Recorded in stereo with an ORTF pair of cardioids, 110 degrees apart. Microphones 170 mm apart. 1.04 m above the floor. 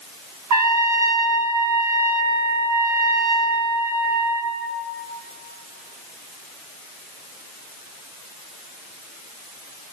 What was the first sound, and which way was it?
A trumpet, 65° right.